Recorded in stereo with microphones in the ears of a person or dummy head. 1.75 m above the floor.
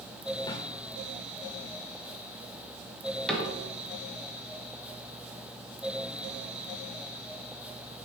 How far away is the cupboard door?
About 1.3 m.